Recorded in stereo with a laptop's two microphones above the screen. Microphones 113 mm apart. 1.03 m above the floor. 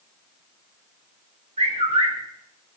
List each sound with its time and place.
1.6 s a bird: 75° right (ahead or behind), 3.5 m